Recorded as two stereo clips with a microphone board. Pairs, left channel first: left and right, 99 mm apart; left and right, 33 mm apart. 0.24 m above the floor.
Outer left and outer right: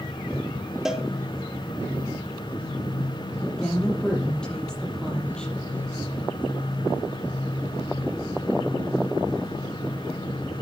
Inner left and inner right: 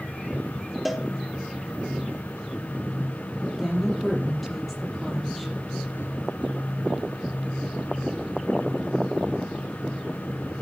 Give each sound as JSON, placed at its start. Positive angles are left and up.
{"t": 0.8, "sound": "a cowbell", "side_deg": -5, "distance_m": 2.0}
{"t": 3.6, "sound": "a woman speaking", "side_deg": 10, "distance_m": 6.0}